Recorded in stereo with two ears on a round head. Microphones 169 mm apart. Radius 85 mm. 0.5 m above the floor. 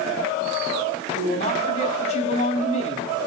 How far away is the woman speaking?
About 3.5 m.